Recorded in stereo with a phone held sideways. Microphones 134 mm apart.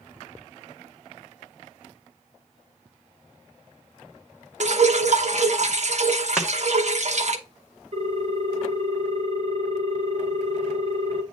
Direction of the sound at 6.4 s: 5° right (ahead or behind).